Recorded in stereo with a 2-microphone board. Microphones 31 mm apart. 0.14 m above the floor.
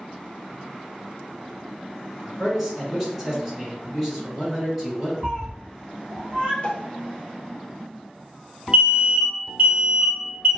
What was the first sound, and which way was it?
A man speaking, 5° right (ahead or behind).